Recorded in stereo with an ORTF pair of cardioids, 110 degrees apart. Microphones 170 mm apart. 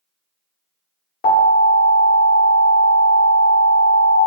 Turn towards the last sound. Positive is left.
turn(degrees=60)